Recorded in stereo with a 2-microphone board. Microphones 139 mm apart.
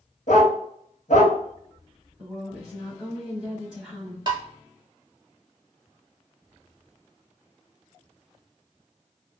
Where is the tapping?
35° right (ahead or behind), 0.7 m.